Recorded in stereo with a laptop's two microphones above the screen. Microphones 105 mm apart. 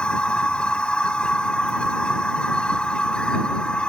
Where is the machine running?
10° left (ahead or behind).